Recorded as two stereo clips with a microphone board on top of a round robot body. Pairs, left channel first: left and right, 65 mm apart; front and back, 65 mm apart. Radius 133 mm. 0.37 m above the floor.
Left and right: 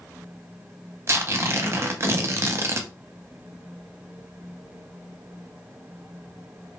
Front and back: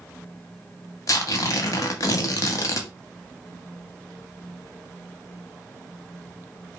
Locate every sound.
1.1 s tearing paper: 40° right, 0.5 m